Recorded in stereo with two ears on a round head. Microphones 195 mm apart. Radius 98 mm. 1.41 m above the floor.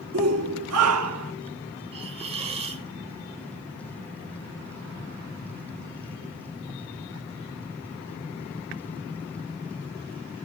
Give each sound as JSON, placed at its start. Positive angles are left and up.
{"t": 0.1, "sound": "a shout", "side_deg": -65, "distance_m": 1.5}
{"t": 1.9, "sound": "a hiss", "side_deg": -30, "distance_m": 1.5}